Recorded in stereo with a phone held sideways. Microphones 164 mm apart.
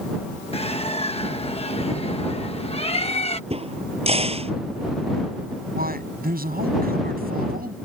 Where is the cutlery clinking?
I don't hear cutlery clinking.